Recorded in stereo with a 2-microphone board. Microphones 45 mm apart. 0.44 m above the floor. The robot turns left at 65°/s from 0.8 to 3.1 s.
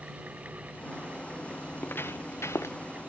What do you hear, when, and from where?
1.7 s footsteps: 40° left (ahead or behind); by 2.8 s 75° left (ahead or behind)